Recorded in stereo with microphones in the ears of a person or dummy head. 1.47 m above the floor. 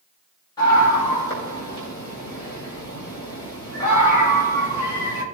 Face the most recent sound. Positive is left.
turn(degrees=20)  # may be behind; listen again after turning